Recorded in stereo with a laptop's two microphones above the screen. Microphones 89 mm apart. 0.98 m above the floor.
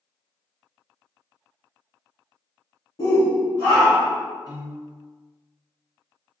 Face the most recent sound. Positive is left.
turn(degrees=-40)  # may be behind; listen again after turning